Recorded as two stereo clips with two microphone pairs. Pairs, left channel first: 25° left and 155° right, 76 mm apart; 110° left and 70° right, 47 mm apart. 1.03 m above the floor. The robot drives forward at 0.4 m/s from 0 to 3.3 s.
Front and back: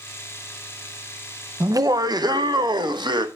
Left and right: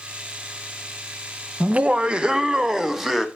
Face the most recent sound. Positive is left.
turn(degrees=-155)